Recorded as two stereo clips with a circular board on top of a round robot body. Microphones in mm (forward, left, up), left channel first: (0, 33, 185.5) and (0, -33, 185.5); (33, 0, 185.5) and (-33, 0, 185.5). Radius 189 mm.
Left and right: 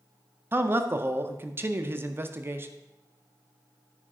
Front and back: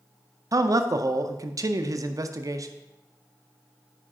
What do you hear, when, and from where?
0.5 s a man speaking: 145° right, 0.6 m